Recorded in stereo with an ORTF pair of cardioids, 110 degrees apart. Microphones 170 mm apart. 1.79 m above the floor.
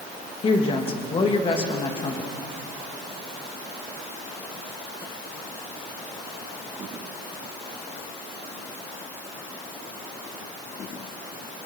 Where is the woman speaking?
30° left, 3 m.